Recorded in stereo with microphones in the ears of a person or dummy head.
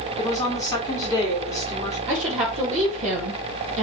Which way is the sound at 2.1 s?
40° right (ahead or behind).